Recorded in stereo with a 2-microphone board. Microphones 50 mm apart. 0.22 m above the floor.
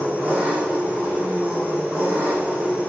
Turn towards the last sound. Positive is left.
turn(degrees=-30)  # may be behind; listen again after turning